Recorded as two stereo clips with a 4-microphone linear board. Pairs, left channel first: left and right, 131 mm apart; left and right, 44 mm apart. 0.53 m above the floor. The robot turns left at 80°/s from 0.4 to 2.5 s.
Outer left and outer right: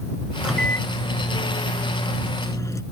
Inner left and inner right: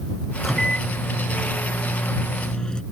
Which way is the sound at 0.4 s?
170° right.